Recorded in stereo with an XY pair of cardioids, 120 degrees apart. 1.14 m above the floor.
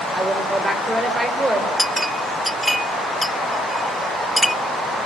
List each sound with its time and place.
0.1 s a woman speaking: 20° right, 4.5 m
1.8 s a clink: straight ahead, 0.6 m